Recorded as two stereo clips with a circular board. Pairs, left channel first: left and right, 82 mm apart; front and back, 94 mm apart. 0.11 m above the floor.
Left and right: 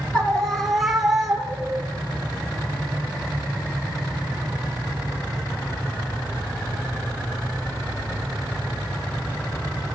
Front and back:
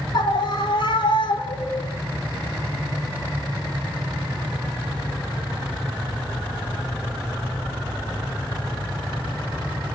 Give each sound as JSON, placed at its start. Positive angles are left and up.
{"t": 0.1, "sound": "a scream", "azimuth_deg": 15, "distance_m": 2.0}